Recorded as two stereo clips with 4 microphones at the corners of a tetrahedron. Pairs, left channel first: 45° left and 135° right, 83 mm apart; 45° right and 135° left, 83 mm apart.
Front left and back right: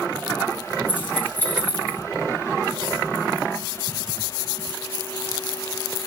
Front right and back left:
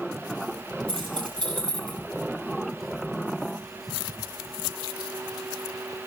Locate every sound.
0.9 s keys jangling: 115° left, 9.5 m